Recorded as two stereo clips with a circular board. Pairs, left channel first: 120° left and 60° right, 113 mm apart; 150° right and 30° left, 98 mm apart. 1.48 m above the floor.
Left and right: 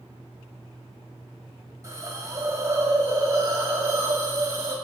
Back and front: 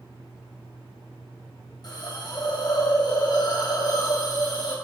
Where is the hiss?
115° right, 1.4 m.